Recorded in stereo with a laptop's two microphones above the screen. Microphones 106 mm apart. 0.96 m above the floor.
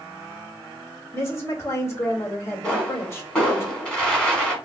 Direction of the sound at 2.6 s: 10° left (ahead or behind).